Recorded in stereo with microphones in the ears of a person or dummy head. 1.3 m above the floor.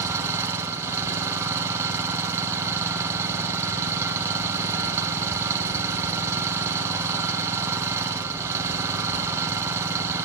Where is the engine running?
15° right (ahead or behind), 1.8 m.